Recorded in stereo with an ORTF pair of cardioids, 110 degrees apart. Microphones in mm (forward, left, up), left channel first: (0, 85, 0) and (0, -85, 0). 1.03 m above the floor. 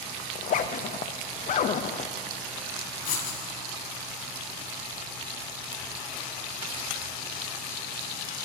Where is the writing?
60° left, 2 m.